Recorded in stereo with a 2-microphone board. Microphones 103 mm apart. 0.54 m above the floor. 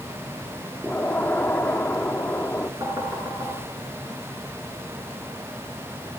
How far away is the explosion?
About 1.3 m.